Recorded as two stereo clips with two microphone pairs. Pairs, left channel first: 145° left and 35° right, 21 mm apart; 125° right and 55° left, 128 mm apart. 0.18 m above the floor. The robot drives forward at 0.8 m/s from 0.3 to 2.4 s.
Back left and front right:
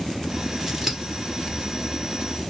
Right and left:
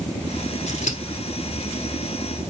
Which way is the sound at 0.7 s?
105° right.